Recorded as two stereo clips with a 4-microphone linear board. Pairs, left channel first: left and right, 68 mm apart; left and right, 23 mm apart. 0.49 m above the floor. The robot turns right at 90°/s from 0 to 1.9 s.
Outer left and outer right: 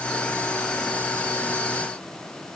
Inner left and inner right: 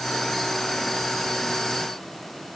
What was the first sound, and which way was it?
Only background noise.